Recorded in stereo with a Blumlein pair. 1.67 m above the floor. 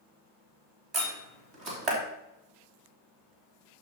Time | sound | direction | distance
0.9 | a door slam | 30° right | 3 m